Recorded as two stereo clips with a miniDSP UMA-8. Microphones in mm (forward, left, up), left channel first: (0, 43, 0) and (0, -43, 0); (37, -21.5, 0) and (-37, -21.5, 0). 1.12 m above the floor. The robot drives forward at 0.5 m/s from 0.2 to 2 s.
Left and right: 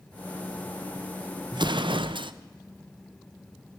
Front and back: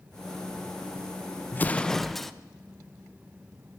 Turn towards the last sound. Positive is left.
turn(degrees=-90)